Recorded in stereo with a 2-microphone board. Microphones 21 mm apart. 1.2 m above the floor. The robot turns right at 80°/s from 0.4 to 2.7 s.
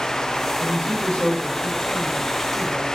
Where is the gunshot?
I don't hear a gunshot.